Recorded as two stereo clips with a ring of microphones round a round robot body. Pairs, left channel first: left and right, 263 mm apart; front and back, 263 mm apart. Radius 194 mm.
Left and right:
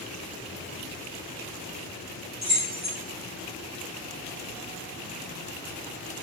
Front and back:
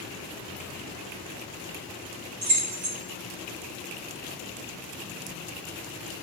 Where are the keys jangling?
145° right, 5 m.